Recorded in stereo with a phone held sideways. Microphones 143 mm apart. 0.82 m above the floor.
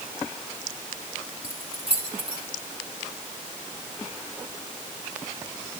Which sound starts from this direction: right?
Keys jangling, at 1.4 s.